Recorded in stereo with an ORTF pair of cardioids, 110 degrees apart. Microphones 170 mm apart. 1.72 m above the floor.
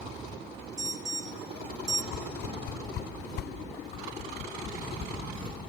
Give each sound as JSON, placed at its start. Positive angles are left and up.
{"t": 0.8, "sound": "an alarm", "azimuth_deg": -20, "distance_m": 1.0}
{"t": 2.1, "sound": "a whoosh", "azimuth_deg": 65, "distance_m": 1.0}
{"t": 3.9, "sound": "a whoosh", "azimuth_deg": 50, "distance_m": 3.0}